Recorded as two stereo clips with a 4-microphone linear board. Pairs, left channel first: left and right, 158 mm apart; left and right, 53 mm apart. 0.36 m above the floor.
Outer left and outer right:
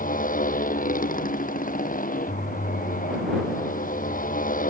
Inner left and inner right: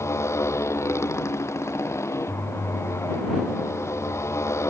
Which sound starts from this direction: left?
A motorcycle, at 0.0 s.